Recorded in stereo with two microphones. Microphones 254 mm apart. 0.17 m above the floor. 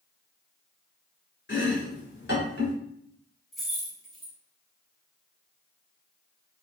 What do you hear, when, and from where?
1.5 s chopping: 45° left (ahead or behind), 1.1 m
3.5 s keys jangling: centre (ahead or behind), 1.0 m